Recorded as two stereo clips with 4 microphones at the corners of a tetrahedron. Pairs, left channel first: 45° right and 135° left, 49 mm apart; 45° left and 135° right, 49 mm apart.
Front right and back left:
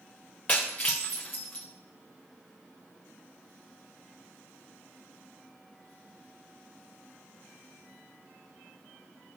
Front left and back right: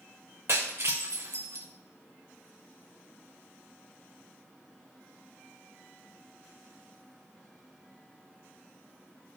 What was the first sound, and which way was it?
Breaking glass, 105° right.